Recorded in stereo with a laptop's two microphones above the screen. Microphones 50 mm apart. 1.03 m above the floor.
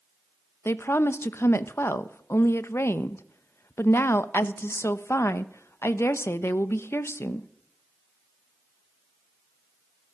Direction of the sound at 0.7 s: 50° left (ahead or behind).